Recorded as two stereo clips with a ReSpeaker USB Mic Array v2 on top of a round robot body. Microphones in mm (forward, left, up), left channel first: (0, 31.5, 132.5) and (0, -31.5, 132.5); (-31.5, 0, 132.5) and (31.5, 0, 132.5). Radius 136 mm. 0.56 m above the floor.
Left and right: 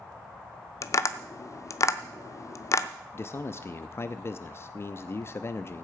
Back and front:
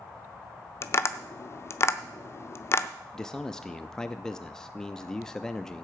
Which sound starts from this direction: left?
A man speaking, at 3.1 s.